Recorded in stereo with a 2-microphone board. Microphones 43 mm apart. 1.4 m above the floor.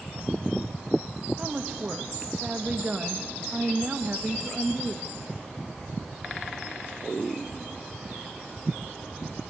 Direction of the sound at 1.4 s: 25° right (ahead or behind).